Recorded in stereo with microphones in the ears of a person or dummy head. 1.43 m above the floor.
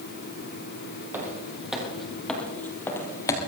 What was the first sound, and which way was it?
Footsteps, 10° right (ahead or behind).